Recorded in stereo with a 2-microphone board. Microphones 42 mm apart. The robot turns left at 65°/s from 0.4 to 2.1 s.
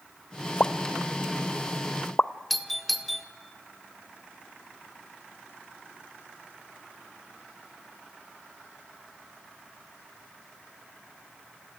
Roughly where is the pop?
Left.